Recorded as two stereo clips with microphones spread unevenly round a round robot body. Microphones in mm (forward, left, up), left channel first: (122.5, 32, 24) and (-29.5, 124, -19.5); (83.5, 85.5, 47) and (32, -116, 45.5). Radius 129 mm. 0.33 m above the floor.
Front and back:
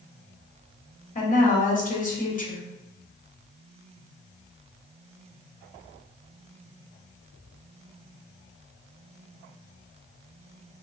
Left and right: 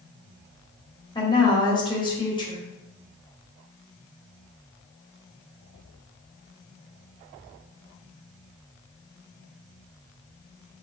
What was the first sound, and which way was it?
A woman speaking, 15° left.